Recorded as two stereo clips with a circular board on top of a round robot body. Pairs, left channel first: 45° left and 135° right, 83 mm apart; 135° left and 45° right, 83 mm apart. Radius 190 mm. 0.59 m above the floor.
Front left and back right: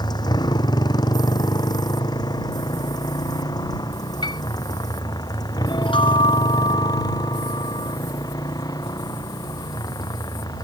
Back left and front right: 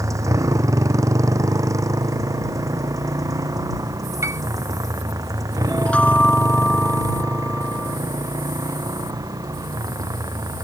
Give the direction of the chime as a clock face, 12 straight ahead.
10 o'clock.